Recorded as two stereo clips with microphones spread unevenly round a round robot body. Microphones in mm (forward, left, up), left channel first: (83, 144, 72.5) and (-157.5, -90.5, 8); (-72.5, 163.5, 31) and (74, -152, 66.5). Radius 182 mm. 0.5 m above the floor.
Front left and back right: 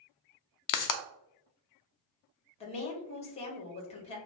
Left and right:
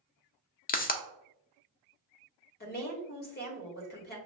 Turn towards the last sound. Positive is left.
turn(degrees=115)